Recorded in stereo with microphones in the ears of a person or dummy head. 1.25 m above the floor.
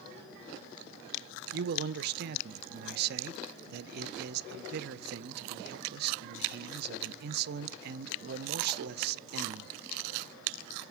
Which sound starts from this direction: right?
A man speaking, at 1.5 s.